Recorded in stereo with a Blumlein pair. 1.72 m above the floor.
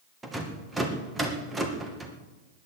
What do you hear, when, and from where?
0.2 s a rattle: 10° right, 2 m